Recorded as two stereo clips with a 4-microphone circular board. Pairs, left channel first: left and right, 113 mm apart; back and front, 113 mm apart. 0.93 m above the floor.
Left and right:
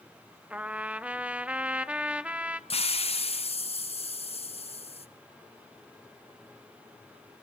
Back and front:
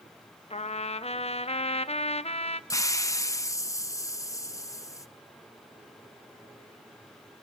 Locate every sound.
0.5 s a trumpet: 170° right, 0.7 m
2.7 s a hiss: 120° left, 0.5 m